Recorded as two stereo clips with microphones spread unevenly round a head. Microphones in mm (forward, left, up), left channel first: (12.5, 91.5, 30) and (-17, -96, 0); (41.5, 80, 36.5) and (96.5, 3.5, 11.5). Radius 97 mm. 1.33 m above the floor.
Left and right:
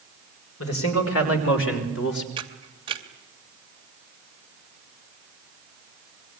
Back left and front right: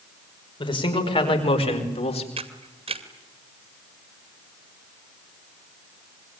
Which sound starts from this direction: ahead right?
A camera shutter, at 2.4 s.